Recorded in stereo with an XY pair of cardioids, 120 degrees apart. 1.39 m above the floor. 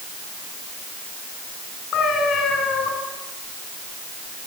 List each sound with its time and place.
1.9 s a cat meowing: 60° left, 8 m